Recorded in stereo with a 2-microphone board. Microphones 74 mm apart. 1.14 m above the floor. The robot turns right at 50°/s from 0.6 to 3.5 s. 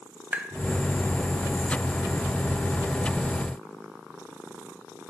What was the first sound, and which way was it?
Tapping, 20° right (ahead or behind).